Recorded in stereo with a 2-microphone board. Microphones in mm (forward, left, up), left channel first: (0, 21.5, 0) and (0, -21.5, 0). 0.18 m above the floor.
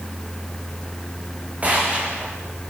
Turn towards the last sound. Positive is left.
turn(degrees=-30)  # may be behind; listen again after turning